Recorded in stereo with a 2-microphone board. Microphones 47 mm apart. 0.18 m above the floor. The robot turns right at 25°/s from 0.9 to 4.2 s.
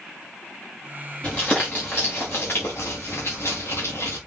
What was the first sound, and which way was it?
Crumpling, 20° left (ahead or behind).